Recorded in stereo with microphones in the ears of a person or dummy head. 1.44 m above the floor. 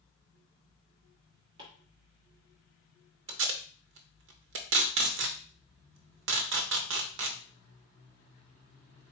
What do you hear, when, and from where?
1.6 s chopping: 30° right (ahead or behind), 1.4 m
3.3 s tape being pulled: 70° right (ahead or behind), 0.7 m